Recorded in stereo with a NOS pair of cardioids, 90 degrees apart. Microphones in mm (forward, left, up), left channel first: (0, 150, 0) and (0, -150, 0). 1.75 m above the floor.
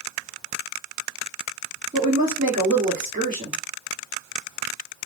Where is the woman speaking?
25° right, 1.5 m.